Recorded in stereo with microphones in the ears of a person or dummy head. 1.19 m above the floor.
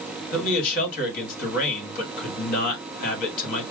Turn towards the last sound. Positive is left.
turn(degrees=50)  # may be behind; listen again after turning